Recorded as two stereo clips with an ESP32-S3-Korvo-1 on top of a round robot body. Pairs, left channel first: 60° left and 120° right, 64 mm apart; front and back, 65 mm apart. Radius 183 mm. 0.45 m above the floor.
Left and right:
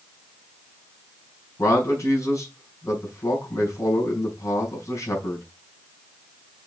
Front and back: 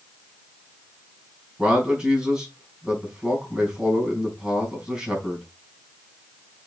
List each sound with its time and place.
1.6 s a man speaking: 100° left, 4.5 m